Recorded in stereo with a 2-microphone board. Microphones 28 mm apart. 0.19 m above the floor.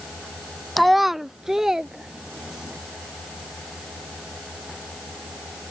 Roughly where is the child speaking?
Centre.